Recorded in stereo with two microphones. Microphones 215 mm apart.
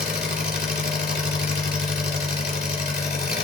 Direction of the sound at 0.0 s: 50° left (ahead or behind).